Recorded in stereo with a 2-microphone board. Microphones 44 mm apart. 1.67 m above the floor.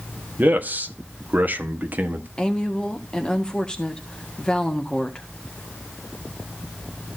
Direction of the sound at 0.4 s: 45° right (ahead or behind).